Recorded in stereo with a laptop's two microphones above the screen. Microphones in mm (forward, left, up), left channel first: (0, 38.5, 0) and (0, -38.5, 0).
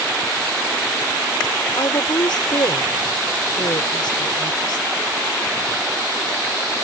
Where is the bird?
No bird in this recording.